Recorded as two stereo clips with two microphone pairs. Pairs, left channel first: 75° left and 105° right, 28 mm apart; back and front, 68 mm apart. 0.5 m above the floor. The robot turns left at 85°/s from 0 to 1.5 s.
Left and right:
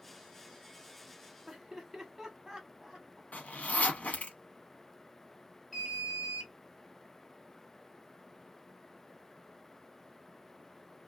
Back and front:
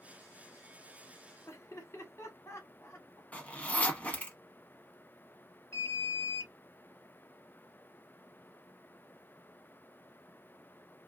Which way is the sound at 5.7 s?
160° left.